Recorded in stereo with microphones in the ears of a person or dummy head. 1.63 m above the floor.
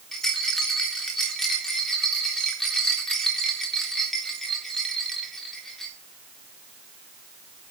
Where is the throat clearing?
No throat clearing in this recording.